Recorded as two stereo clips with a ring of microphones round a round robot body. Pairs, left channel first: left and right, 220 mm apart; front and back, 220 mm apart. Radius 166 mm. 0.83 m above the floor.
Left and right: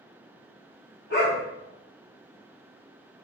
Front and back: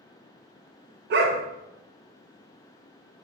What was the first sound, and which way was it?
A dog barking, 150° left.